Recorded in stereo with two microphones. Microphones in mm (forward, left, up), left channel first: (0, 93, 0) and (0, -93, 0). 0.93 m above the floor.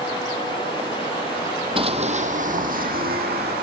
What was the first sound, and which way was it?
Running footsteps, 30° right (ahead or behind).